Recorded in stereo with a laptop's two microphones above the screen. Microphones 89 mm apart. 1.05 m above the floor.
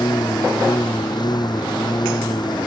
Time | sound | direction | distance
0.0 | a lawn mower | 50° left (ahead or behind) | ?